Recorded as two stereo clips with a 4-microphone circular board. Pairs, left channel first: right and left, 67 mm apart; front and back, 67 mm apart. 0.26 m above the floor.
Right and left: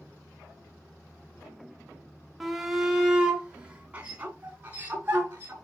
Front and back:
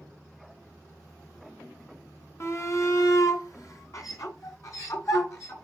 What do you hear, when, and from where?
2.4 s a shout: straight ahead, 1.2 m; by 5.5 s 30° left, 3 m